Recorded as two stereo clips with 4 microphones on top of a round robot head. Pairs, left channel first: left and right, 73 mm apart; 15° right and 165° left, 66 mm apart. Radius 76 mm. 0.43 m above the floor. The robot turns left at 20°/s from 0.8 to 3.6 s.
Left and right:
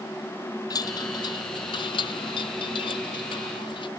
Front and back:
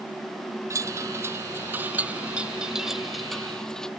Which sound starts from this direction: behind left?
A chime, at 0.7 s.